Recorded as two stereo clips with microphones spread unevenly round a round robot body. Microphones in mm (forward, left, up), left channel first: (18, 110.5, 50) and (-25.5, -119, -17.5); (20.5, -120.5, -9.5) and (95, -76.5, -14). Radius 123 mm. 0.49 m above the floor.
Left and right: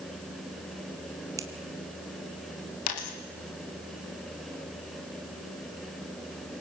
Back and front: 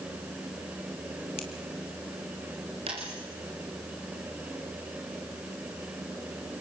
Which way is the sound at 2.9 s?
90° left.